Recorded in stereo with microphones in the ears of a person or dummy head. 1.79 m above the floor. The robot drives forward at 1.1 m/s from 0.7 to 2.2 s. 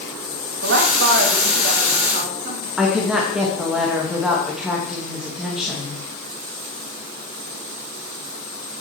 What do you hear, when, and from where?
0.6 s a woman speaking: 65° right (ahead or behind), 2.5 m; by 2.7 s 40° right (ahead or behind), 3.5 m
2.8 s a woman speaking: centre (ahead or behind), 2.5 m